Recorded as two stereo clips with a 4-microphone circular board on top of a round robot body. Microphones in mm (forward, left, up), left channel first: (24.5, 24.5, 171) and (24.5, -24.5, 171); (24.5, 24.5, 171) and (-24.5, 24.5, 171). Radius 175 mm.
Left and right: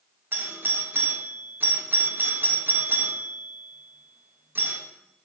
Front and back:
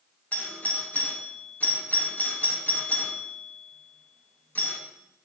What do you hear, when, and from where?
0.3 s a doorbell: 50° right, 1.5 m